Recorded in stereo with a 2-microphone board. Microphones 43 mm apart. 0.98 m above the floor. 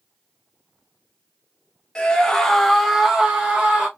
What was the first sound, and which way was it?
A scream, 25° left (ahead or behind).